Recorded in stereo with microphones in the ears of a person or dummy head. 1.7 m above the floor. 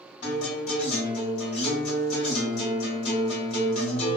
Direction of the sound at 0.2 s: 35° left (ahead or behind).